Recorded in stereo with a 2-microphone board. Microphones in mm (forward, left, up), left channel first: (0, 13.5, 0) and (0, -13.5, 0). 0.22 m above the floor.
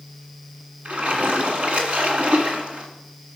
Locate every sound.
0.8 s a splash: 50° right (ahead or behind), 1.8 m